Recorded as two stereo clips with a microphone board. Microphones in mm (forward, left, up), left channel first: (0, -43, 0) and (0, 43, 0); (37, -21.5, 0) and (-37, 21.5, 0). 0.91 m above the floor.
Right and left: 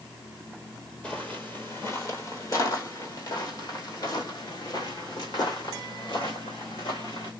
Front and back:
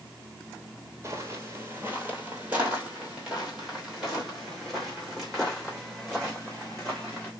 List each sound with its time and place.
1.0 s footsteps: 160° right, 1.4 m; by 7.3 s 115° right, 4 m